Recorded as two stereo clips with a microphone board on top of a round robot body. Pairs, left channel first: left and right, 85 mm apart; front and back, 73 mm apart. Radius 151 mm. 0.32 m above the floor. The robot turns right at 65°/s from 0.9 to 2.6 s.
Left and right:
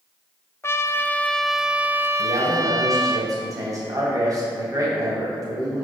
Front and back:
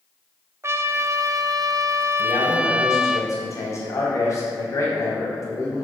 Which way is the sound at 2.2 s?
70° right.